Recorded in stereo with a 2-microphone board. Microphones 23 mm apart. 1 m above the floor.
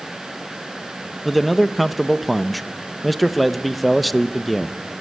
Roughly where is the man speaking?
Centre.